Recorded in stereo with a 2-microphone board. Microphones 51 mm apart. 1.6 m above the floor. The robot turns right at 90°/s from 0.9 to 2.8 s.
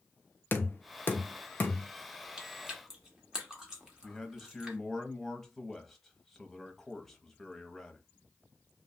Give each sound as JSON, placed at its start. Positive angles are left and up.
{"t": 0.5, "sound": "knocking", "side_deg": 40, "distance_m": 0.7}
{"t": 2.4, "sound": "chewing", "side_deg": -20, "distance_m": 1.0}
{"t": 4.0, "sound": "a man speaking", "side_deg": 5, "distance_m": 0.8}